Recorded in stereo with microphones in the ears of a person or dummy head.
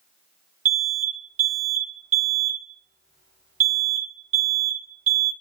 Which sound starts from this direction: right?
An alarm, at 0.7 s.